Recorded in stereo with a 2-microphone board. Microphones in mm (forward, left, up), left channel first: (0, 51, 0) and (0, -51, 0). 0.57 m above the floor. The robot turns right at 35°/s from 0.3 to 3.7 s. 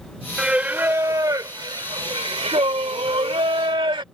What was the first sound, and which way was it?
Singing, 170° right.